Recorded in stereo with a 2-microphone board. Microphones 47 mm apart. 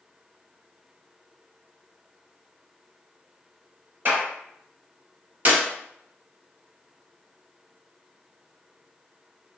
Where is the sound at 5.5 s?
35° right (ahead or behind), 1.6 m.